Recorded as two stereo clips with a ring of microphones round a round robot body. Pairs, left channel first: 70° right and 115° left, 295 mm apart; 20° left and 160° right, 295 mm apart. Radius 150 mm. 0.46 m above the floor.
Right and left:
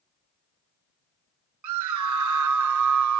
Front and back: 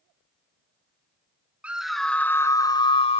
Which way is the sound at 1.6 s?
120° left.